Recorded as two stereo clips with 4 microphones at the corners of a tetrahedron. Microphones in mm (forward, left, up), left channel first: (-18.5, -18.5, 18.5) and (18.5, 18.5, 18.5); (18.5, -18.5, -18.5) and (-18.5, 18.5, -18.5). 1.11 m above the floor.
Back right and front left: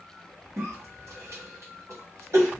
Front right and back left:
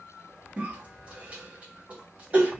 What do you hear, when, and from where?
0.6 s a cough: 70° left, 1.0 m